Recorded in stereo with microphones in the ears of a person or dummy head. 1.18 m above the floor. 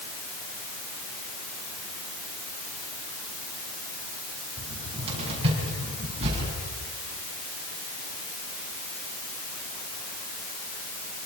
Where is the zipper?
I don't hear a zipper.